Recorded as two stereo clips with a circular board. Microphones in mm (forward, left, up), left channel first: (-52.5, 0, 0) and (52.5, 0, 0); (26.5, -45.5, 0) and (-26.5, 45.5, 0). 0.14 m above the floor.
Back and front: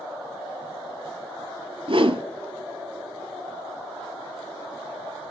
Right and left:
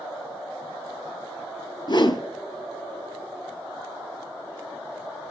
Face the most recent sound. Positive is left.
turn(degrees=-20)